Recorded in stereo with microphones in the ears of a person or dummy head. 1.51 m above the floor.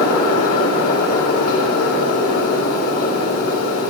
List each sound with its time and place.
0.0 s a fan: 40° left (ahead or behind), 4 m